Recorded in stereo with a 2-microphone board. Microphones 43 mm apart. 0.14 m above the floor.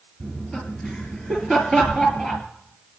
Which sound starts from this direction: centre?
Laughter, at 0.2 s.